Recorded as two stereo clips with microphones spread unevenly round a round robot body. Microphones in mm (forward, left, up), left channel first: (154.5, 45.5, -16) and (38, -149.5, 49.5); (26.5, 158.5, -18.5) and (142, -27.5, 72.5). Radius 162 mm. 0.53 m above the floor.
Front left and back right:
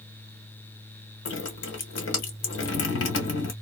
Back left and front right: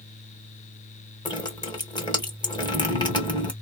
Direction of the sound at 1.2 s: 55° left.